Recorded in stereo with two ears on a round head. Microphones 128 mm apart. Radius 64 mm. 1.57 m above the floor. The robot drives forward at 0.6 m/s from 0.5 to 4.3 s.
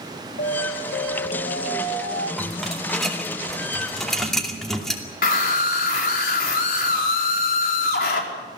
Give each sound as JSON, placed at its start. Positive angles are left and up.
{"t": 0.4, "sound": "an alarm", "side_deg": 70, "distance_m": 2.0}
{"t": 2.4, "sound": "a rattle", "side_deg": 0, "distance_m": 3.5}
{"t": 5.2, "sound": "a scream", "side_deg": 70, "distance_m": 5.0}